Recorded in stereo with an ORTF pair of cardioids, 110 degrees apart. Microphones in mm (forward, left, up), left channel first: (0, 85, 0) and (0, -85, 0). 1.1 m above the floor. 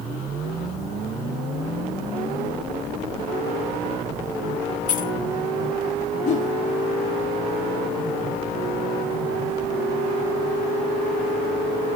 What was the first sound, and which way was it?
Keys jangling, 45° left.